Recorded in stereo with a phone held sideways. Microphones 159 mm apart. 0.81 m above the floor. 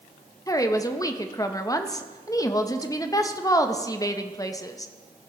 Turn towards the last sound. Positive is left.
turn(degrees=20)  # may be behind; listen again after turning